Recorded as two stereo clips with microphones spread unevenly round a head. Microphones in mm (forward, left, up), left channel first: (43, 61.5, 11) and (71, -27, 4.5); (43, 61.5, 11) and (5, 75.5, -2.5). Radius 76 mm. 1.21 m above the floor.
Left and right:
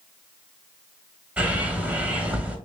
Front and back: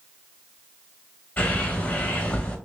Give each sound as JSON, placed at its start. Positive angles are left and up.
{"t": 1.4, "sound": "a bird", "azimuth_deg": 5, "distance_m": 1.3}